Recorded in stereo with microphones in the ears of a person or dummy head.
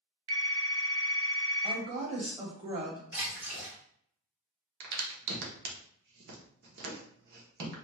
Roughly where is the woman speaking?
Right.